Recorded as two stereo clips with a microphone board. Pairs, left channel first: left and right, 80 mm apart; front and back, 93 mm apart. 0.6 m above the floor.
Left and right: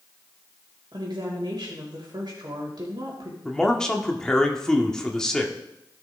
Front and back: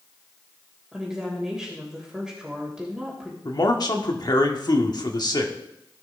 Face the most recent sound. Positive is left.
turn(degrees=10)